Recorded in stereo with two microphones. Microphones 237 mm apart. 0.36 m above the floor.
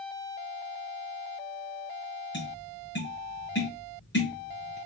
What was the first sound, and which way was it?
Tapping, 50° left (ahead or behind).